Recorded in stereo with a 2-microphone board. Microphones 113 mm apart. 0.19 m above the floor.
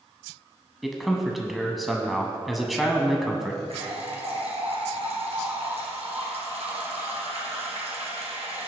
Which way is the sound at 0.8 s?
Centre (ahead or behind).